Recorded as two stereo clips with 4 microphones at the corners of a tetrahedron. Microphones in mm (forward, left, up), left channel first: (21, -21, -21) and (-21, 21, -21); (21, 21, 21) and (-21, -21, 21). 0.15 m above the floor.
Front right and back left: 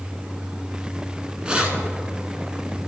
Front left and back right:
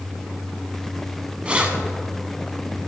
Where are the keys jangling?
Straight behind, 1.1 m.